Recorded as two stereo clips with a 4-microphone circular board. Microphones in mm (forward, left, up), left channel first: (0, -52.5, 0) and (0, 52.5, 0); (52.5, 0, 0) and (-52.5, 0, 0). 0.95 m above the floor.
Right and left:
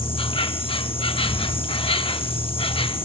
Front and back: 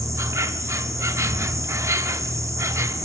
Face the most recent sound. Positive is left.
turn(degrees=-120)